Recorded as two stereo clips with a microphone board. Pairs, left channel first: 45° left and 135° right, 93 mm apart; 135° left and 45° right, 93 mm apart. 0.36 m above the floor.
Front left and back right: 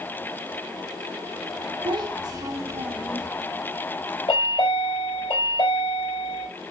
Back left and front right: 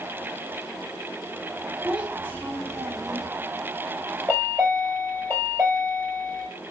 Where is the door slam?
I don't hear a door slam.